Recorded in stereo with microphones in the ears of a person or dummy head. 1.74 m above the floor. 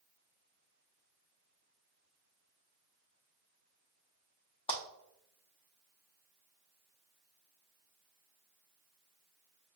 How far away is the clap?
About 0.6 m.